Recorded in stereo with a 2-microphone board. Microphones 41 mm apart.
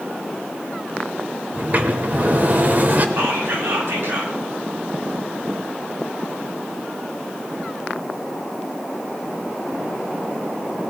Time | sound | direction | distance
1.5 | a sliding door | 45° right (ahead or behind) | 0.9 m
3.2 | whispering | 75° right (ahead or behind) | 4.5 m